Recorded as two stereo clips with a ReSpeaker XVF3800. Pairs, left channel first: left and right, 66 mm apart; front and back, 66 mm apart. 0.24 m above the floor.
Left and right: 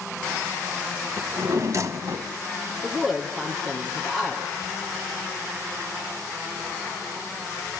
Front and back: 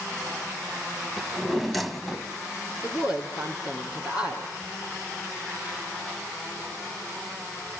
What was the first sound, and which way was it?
A drawer, 90° right.